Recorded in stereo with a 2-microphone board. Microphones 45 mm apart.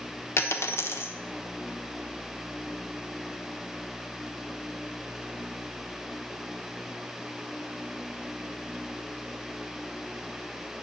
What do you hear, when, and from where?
0.4 s a dropped coin: 65° left (ahead or behind), 1.0 m